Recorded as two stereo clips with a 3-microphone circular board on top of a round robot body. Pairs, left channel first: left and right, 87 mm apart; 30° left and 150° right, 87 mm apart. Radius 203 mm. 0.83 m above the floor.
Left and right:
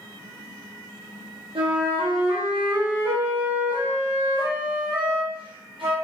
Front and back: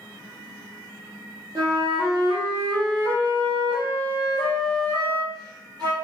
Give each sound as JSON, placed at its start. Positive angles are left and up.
{"t": 1.6, "sound": "a flute", "azimuth_deg": -110, "distance_m": 0.9}